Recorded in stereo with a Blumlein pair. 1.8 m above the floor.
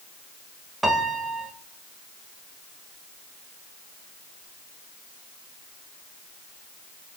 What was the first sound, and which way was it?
A piano, 10° right.